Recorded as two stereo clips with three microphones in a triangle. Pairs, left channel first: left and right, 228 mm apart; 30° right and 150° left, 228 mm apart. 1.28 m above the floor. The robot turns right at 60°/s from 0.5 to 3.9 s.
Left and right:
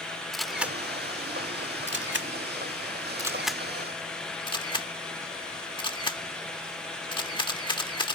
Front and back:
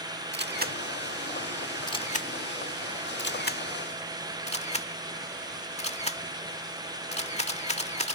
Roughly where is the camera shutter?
Behind.